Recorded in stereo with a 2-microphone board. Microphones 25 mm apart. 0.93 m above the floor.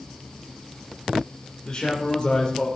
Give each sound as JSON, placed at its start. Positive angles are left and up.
{"t": 1.6, "sound": "a man speaking", "side_deg": 30, "distance_m": 3.0}